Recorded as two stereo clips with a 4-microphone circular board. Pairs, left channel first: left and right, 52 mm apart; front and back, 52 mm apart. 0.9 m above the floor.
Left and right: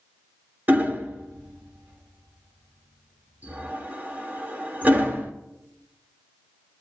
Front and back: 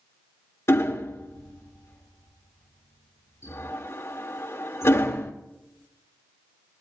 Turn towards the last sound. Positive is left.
turn(degrees=-35)